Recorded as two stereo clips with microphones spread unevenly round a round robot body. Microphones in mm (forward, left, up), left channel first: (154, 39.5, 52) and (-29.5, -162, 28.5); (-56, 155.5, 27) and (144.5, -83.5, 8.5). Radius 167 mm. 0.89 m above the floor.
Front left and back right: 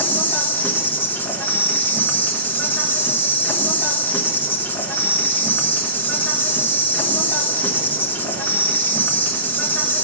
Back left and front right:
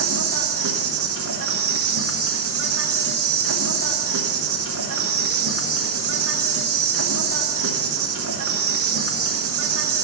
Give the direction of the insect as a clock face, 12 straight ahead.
1 o'clock.